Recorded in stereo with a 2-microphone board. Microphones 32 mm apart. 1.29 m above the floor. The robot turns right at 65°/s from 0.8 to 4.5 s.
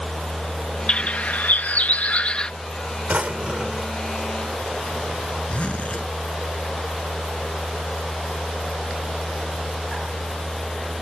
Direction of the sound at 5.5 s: 45° left (ahead or behind).